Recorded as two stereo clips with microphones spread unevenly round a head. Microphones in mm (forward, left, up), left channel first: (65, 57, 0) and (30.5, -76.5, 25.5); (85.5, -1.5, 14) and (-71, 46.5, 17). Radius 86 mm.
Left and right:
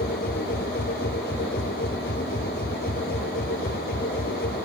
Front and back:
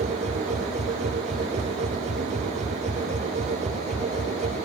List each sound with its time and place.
0.0 s a machine running: 115° left